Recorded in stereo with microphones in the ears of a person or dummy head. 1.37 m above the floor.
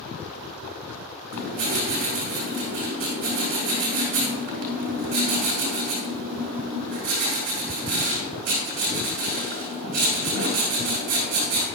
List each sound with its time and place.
1.3 s writing: 45° right (ahead or behind), 5 m